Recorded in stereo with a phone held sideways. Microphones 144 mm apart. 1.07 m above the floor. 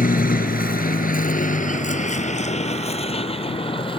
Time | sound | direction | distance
0.0 | a vehicle | 75° left (ahead or behind) | ?